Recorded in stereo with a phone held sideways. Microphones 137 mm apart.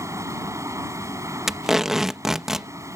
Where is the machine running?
20° right (ahead or behind).